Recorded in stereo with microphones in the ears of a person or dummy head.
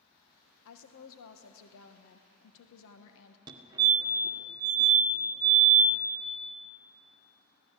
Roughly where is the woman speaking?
Left.